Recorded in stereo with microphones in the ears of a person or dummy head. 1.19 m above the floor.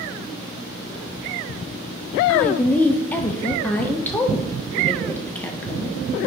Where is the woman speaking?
10° left (ahead or behind), 0.6 m.